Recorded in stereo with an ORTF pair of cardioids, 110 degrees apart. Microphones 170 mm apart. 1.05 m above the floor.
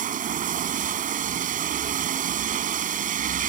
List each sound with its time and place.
0.0 s running water: 50° right